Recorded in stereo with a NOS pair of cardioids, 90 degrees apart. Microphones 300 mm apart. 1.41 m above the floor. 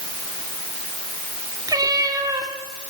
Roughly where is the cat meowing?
Ahead.